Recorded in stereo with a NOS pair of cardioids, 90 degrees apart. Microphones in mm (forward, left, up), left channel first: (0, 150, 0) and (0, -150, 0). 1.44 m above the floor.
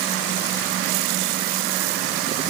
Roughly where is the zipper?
No zipper in this recording.